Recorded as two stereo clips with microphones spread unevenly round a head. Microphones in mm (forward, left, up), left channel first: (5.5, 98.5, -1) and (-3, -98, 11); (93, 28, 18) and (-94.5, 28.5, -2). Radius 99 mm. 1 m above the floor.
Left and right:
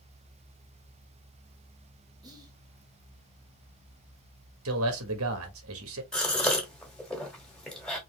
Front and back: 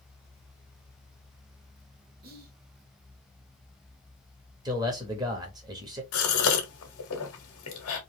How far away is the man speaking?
About 1.3 m.